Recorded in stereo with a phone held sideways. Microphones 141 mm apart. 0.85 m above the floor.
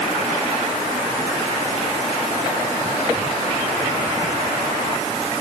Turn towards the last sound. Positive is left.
No sound to turn to.